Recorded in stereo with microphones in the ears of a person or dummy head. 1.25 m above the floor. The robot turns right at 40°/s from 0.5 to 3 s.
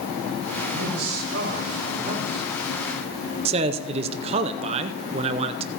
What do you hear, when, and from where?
0.7 s a man speaking: 100° right, 4 m; by 2.5 s 30° right, 4 m
3.5 s a man speaking: 30° right (ahead or behind), 0.5 m